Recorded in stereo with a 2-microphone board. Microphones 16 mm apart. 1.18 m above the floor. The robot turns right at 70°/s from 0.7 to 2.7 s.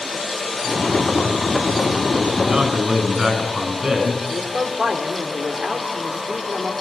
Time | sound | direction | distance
2.4 | a man speaking | 70° right (ahead or behind) | 8.5 m
4.3 | a man speaking | 85° right | 3 m